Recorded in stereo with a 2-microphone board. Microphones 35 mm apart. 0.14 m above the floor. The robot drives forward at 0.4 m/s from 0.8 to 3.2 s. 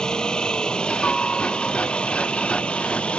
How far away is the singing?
I don't hear singing.